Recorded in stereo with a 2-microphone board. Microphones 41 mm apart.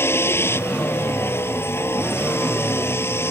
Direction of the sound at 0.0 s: 85° left.